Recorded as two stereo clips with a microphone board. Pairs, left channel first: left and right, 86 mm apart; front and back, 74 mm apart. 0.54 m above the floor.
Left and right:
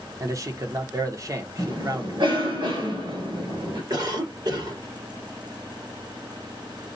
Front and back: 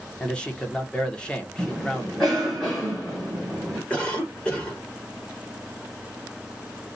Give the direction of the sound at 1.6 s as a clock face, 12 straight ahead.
2 o'clock.